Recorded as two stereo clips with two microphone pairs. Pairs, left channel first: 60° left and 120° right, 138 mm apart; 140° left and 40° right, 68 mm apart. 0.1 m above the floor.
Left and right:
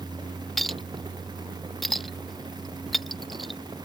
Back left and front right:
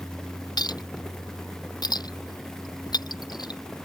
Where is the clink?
150° left.